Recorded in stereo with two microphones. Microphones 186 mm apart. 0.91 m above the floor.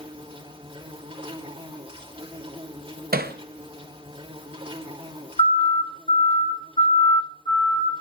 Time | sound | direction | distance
0.0 | an insect | 30° right (ahead or behind) | 3 m
3.1 | hammering | 55° right (ahead or behind) | 0.7 m
5.4 | a siren | 35° left (ahead or behind) | 4.5 m